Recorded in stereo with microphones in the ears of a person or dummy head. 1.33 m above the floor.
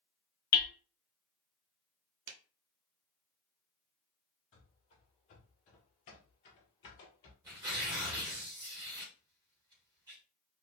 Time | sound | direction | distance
0.5 | hammering | 45° left (ahead or behind) | 0.6 m
2.3 | a clap | 70° right (ahead or behind) | 0.6 m
4.5 | running footsteps | 30° left (ahead or behind) | 1.8 m
7.4 | tearing paper | 15° right (ahead or behind) | 1.5 m